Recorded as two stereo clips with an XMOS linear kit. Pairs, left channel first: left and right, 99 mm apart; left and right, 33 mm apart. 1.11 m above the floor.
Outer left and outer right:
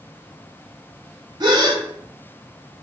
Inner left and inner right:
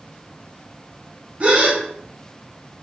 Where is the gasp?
45° right (ahead or behind), 0.7 m.